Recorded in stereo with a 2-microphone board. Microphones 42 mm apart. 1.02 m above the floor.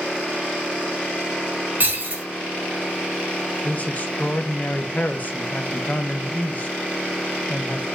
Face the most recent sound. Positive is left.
turn(degrees=40)  # may be behind; listen again after turning